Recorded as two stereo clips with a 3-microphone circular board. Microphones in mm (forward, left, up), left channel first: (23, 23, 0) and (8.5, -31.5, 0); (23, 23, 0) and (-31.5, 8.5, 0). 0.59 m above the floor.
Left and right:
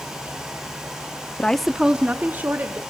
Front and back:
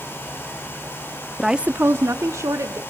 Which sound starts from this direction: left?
A woman speaking, at 1.4 s.